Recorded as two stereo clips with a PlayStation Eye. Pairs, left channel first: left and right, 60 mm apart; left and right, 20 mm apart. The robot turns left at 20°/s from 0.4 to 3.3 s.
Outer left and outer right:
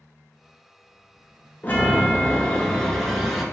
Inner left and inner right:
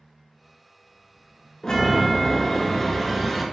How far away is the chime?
About 0.5 m.